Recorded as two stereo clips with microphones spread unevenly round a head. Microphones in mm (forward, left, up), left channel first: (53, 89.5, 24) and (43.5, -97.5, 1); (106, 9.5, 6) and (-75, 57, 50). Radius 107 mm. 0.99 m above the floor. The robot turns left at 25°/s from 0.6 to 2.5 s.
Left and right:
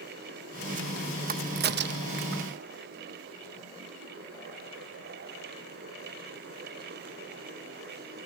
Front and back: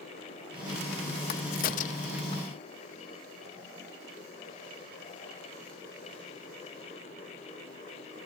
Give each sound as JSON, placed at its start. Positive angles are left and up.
{"t": 1.3, "sound": "a crack", "azimuth_deg": -50}